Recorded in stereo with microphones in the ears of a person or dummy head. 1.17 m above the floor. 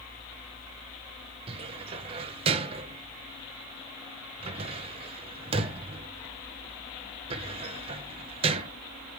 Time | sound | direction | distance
1.5 | a cupboard door | 30° right (ahead or behind) | 0.8 m